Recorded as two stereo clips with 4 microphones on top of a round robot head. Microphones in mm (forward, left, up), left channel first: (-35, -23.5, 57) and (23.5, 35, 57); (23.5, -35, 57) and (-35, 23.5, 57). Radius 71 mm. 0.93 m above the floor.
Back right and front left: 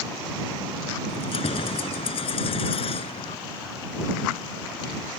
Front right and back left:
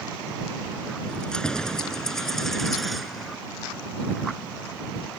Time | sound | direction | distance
1.1 | keys jangling | 125° right | ?